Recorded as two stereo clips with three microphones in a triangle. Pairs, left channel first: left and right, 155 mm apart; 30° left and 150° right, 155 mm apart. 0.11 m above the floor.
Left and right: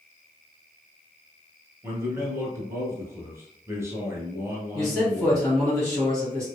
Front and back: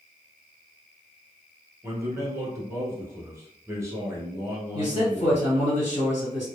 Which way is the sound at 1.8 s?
125° right.